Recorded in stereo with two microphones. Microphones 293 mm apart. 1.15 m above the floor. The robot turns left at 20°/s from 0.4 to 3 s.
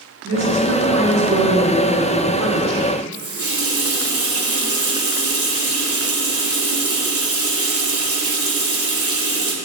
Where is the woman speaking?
135° right, 1.3 m; by 2.9 s 175° left, 1.3 m.